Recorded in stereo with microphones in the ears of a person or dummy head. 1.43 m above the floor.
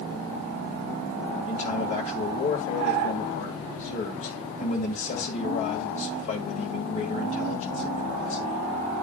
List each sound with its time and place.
1.5 s a man speaking: 40° left (ahead or behind), 1.8 m